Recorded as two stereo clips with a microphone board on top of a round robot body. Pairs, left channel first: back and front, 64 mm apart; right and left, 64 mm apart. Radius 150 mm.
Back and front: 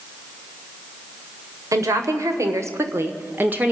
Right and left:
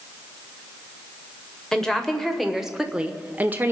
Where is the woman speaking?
10° right, 2 m; by 3.7 s 55° left, 1.4 m.